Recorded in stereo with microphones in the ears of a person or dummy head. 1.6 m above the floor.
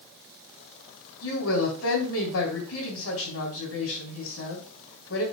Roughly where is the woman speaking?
Left.